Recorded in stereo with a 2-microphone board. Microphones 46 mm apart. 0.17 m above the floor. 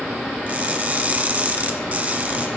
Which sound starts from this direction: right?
Crushing, at 0.5 s.